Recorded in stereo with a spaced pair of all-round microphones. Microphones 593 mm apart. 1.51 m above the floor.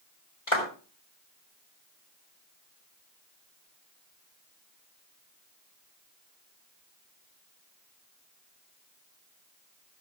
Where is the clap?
65° left (ahead or behind), 4.5 m.